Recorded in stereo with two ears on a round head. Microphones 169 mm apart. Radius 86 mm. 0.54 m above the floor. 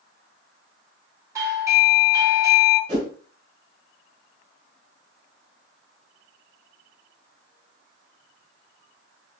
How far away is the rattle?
No rattle in this recording.